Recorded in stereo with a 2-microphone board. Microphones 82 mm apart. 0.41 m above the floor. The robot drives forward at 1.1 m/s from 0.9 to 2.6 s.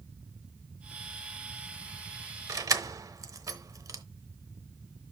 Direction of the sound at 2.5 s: 45° right (ahead or behind).